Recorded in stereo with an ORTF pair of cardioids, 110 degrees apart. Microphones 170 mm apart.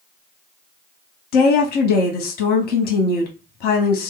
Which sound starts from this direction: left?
A woman speaking, at 1.3 s.